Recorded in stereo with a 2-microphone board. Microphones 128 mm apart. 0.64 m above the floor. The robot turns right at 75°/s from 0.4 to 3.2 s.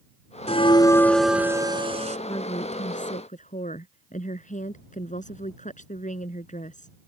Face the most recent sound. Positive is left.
turn(degrees=100)